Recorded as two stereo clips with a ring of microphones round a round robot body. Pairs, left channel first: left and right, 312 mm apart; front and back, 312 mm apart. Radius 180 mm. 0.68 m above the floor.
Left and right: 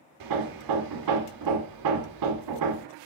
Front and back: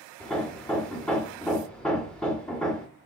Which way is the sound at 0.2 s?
85° right.